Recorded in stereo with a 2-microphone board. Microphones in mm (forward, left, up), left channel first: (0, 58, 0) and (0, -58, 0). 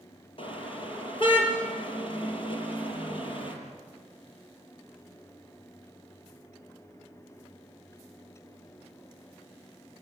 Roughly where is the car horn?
Left.